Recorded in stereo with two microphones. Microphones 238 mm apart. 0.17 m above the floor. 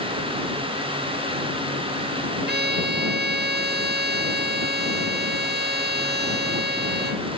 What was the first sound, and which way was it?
A violin, 45° right (ahead or behind).